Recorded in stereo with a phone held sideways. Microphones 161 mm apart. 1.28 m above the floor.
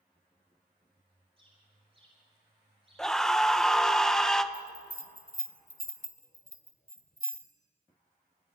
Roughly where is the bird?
Right.